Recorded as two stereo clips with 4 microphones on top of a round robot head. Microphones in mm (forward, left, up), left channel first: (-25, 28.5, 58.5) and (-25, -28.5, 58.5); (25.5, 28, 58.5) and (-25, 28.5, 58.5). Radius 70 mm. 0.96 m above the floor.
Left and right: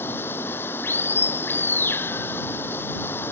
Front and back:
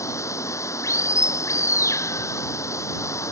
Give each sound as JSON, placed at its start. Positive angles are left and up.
{"t": 0.0, "sound": "running water", "azimuth_deg": 30}